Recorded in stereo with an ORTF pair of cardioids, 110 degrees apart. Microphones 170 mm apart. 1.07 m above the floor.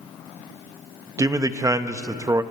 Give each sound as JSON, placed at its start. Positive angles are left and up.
{"t": 1.2, "sound": "a man speaking", "azimuth_deg": -20, "distance_m": 1.0}